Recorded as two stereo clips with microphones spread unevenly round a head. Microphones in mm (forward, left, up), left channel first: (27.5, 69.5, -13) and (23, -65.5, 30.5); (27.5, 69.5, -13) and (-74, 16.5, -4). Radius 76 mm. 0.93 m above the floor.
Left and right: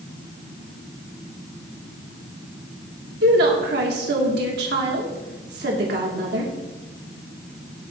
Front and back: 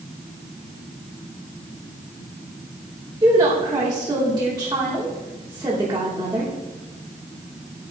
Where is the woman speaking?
85° right, 3 m.